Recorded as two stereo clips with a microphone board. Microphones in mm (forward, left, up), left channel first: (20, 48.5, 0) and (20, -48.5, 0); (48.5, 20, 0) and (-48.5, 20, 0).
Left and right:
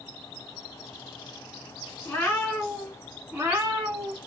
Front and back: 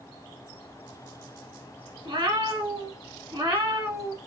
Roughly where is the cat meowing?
Behind left.